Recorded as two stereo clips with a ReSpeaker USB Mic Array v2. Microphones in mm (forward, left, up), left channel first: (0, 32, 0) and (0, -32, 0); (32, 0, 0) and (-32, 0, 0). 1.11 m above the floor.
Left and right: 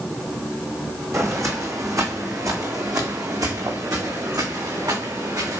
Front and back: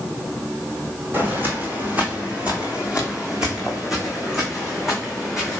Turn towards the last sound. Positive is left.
turn(degrees=-90)